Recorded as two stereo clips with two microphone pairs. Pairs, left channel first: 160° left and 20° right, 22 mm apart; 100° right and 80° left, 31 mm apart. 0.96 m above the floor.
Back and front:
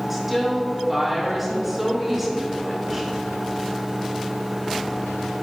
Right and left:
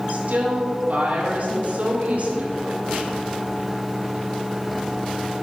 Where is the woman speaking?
60° left, 2.5 m.